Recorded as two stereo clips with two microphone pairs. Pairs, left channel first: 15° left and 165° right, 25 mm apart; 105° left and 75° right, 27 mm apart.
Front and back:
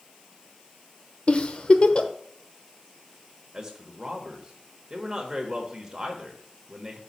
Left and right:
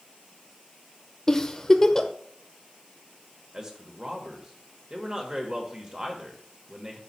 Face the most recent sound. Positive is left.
turn(degrees=-110)